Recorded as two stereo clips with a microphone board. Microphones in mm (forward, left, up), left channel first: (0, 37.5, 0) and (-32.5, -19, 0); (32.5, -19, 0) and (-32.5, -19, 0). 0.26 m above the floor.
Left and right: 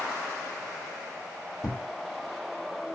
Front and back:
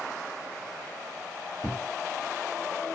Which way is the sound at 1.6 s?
45° left.